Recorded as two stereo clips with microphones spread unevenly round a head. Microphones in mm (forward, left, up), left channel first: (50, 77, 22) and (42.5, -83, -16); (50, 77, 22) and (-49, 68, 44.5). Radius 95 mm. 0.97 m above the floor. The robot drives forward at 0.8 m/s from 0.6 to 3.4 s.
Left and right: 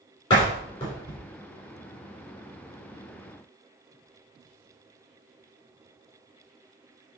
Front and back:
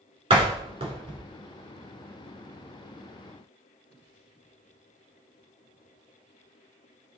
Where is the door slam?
155° left, 3 m; by 1.2 s 160° left, 3 m.